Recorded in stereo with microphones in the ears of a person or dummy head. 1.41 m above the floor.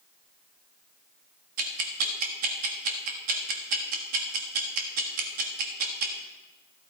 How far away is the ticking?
About 1.3 m.